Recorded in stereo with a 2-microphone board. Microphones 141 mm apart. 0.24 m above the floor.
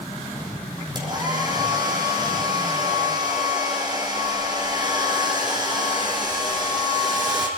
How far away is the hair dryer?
About 6 m.